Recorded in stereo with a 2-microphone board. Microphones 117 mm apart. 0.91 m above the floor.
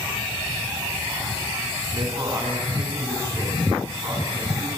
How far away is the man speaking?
About 9 m.